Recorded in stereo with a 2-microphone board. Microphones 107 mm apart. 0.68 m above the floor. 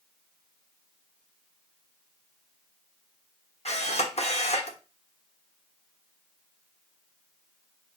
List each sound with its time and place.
3.6 s a camera shutter: 70° left (ahead or behind), 1.1 m